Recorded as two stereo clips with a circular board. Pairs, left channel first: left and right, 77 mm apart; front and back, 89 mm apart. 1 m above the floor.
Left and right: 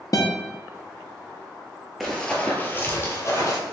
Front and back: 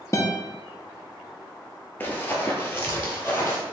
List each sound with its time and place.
0.1 s a guitar: 55° left, 0.7 m
2.0 s running footsteps: straight ahead, 1.0 m; by 3.6 s 60° left, 1.5 m